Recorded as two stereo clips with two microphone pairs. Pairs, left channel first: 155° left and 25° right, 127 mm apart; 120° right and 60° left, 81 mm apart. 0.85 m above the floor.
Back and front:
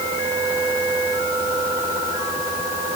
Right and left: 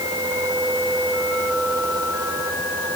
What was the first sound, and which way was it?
Only background noise.